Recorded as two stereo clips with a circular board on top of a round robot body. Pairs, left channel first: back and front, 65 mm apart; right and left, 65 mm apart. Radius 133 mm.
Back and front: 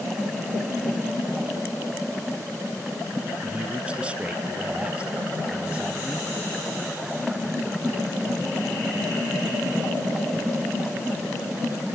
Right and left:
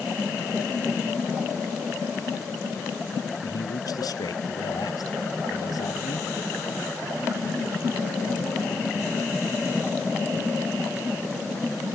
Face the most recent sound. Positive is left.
turn(degrees=-75)